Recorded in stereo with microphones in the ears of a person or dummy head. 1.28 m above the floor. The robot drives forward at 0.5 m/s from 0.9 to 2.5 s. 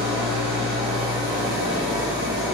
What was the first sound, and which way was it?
An engine running, 30° right (ahead or behind).